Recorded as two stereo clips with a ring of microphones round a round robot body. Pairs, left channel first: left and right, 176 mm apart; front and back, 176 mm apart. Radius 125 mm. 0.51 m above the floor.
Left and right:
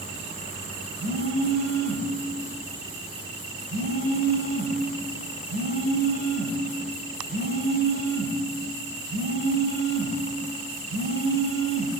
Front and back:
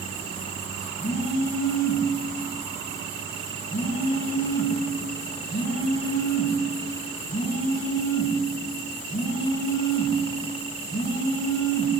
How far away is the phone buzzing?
About 5 m.